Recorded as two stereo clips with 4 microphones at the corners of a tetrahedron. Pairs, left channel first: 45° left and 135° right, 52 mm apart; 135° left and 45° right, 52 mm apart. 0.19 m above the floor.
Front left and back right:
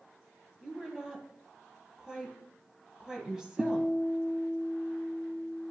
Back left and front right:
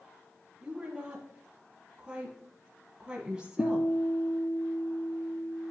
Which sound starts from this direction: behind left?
A guitar, at 3.6 s.